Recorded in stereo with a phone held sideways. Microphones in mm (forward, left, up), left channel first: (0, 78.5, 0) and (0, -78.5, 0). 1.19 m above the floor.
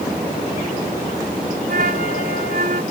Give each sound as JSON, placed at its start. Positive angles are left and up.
{"t": 1.7, "sound": "a flute", "side_deg": -70}